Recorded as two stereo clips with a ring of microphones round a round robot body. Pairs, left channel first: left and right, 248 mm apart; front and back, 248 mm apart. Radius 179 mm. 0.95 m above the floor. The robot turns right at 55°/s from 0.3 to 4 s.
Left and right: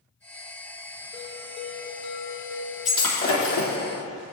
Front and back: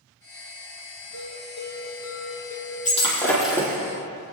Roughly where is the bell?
Ahead right.